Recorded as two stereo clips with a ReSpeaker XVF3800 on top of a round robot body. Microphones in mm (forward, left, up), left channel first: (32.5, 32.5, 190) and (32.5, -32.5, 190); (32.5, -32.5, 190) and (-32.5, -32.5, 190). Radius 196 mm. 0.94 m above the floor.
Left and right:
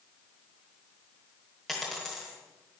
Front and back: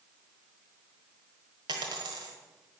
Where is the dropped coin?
Straight behind, 1.3 m.